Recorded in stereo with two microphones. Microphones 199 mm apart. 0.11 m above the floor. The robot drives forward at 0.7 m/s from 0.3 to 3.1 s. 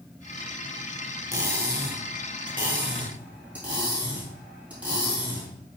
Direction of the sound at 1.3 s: 15° right (ahead or behind).